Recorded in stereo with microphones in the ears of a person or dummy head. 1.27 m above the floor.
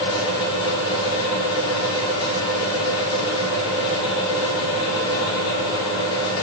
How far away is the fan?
About 5.5 m.